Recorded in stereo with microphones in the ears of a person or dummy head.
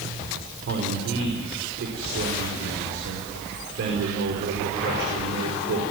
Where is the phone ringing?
No phone ringing in this recording.